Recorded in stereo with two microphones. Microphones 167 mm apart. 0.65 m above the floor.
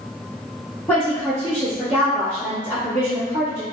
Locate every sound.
0.9 s a woman speaking: 15° left (ahead or behind), 1.2 m